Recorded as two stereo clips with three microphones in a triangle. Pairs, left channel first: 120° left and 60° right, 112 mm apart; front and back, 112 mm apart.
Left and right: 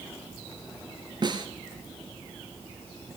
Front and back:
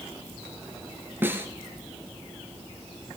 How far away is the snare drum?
About 1.6 m.